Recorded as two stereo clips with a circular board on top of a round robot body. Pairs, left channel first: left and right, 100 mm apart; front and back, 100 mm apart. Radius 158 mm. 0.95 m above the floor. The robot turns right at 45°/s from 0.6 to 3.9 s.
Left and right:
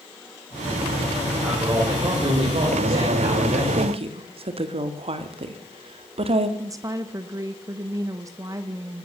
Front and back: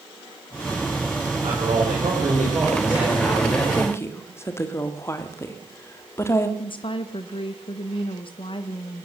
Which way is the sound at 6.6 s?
35° right.